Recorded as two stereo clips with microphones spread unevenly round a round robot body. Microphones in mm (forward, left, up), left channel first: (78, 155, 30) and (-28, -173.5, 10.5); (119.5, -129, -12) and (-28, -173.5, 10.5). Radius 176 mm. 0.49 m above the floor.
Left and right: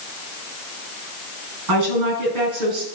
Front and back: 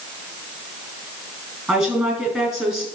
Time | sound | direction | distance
1.7 | a woman speaking | 70° right | 5.5 m